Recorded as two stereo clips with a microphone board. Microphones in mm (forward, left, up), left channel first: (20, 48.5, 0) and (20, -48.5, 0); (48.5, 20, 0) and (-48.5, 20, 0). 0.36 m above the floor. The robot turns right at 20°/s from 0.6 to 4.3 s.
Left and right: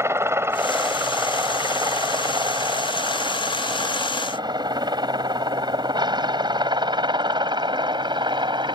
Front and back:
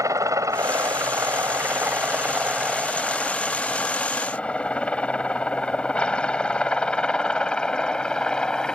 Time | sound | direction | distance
0.0 | a helicopter | 140° right | ?